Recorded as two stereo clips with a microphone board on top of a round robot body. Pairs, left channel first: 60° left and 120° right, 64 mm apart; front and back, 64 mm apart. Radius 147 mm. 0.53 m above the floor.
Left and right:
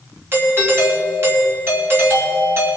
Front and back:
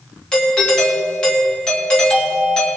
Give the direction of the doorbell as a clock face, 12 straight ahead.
3 o'clock.